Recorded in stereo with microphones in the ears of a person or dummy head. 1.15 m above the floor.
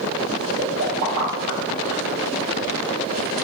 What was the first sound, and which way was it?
A pop, 65° right (ahead or behind).